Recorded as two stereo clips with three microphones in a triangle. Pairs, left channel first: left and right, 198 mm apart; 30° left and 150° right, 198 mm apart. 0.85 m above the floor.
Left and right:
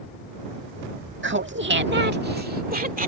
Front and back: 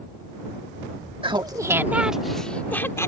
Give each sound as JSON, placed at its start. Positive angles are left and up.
{"t": 1.2, "sound": "laughter", "azimuth_deg": -85}